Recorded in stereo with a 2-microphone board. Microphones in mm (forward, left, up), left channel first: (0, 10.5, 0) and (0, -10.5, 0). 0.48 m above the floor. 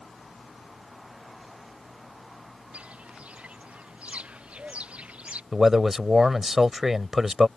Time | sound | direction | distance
2.7 | footsteps | 85° right | ?
5.5 | a man speaking | 15° right (ahead or behind) | ?